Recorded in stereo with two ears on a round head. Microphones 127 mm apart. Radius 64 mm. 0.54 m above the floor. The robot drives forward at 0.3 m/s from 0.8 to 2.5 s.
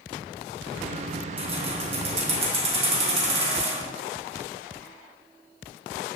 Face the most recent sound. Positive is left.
turn(degrees=-40)  # may be behind; listen again after turning